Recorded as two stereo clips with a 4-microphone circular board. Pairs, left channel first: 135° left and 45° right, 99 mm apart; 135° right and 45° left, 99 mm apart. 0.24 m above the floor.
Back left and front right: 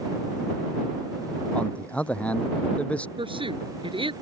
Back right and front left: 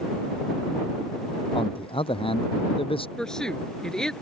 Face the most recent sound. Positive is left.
turn(degrees=-55)